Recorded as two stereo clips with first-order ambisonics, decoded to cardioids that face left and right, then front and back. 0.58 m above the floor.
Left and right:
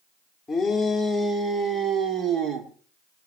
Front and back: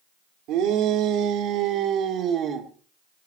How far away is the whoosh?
I don't hear a whoosh.